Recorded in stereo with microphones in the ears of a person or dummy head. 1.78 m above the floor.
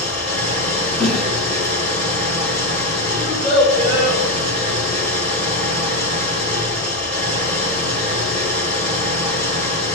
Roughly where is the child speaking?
Left.